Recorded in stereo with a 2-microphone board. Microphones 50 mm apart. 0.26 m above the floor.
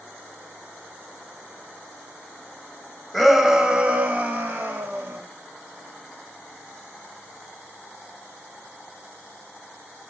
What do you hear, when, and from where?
3.1 s a shout: centre (ahead or behind), 1.2 m; by 5.2 s 55° right (ahead or behind), 1.9 m